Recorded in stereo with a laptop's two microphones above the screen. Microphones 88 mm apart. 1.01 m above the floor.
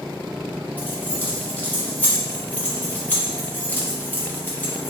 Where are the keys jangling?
20° left (ahead or behind), 0.8 m.